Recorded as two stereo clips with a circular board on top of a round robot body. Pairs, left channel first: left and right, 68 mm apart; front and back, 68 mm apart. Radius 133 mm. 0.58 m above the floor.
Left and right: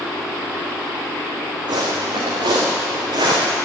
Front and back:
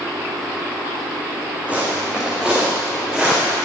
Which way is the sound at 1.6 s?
105° right.